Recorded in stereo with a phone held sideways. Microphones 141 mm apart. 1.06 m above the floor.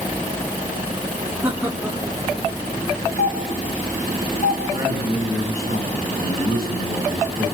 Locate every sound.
1.4 s laughter: 15° right (ahead or behind), 3 m; by 3.1 s centre (ahead or behind), 5 m
3.2 s a doorbell: 70° left (ahead or behind), 5 m
4.7 s a man speaking: 80° left, 7.5 m